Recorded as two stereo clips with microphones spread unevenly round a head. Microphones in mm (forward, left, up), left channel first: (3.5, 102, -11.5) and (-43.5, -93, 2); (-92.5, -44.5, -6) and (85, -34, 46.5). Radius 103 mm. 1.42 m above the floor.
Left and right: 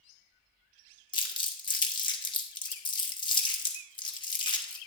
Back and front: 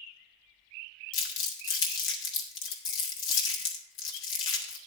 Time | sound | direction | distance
1.1 | crumpling | 145° left | 1.5 m